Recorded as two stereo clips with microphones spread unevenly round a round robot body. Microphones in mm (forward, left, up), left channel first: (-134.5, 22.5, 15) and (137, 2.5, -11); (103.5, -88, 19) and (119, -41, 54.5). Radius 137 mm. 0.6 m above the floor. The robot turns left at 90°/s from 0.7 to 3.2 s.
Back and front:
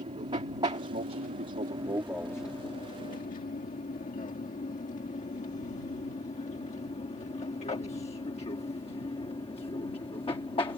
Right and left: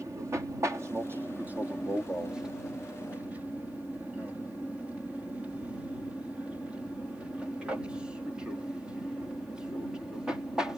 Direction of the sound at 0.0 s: 35° left.